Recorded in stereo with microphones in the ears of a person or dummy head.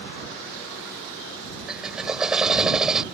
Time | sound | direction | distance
1.7 | a drill | centre (ahead or behind) | ?